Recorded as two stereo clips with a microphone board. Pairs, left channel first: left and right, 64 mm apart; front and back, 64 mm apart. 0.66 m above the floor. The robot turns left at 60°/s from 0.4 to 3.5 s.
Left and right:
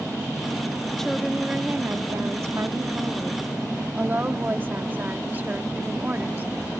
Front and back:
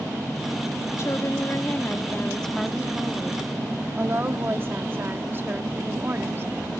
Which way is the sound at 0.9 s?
15° left.